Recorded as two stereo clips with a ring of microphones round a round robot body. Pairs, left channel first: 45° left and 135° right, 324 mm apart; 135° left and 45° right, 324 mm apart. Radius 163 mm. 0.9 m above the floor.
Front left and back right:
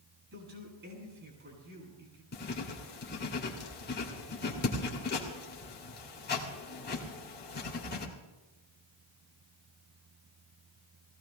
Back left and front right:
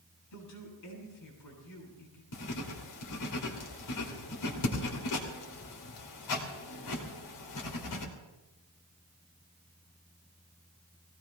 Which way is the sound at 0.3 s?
170° left.